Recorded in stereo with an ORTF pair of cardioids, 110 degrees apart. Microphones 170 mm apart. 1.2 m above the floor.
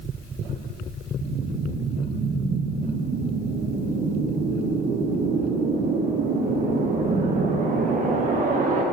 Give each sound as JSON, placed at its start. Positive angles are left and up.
{"t": 1.2, "sound": "a whoosh", "azimuth_deg": -50, "distance_m": 0.9}